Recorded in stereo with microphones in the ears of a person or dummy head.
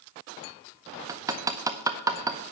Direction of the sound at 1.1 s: 15° right (ahead or behind).